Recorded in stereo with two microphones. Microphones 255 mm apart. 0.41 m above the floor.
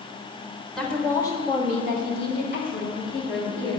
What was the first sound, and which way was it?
A woman speaking, centre (ahead or behind).